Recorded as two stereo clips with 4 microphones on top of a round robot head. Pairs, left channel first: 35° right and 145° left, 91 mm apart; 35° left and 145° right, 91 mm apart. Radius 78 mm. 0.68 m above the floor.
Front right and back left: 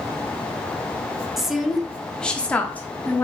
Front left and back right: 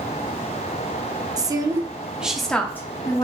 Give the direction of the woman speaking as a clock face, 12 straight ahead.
4 o'clock.